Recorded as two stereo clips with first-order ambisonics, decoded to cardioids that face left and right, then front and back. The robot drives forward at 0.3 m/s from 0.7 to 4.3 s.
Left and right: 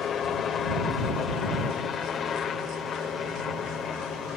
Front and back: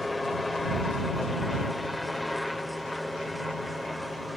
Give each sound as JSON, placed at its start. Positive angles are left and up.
{"t": 0.0, "sound": "a helicopter", "azimuth_deg": 75}